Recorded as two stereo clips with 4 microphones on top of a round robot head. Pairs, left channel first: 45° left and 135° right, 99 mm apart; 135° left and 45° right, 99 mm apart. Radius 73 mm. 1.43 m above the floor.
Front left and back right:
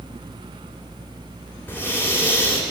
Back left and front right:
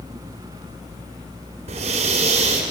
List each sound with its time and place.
1.7 s breathing: 30° right, 3 m